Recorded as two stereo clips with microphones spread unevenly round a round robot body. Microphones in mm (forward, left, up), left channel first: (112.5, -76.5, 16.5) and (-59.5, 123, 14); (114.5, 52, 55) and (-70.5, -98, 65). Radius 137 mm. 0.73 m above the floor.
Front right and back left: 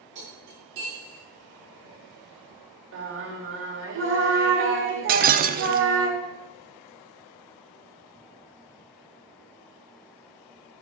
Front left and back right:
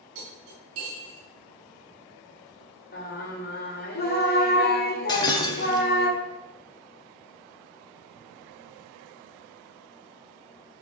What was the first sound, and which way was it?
Cutlery clinking, 175° right.